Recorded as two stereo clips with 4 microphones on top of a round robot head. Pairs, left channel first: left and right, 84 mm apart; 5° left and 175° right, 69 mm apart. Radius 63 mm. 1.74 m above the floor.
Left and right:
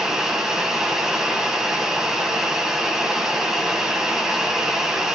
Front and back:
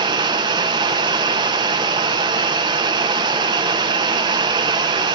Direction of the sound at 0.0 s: 175° right.